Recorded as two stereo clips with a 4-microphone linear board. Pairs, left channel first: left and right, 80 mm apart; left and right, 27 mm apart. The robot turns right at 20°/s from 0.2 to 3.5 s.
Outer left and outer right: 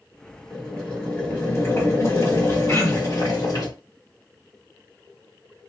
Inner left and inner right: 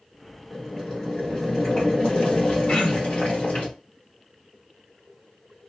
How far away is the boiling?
About 1.7 m.